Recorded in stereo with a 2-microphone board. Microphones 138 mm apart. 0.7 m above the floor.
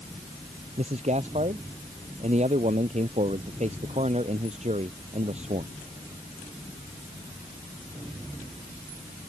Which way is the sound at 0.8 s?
55° right (ahead or behind).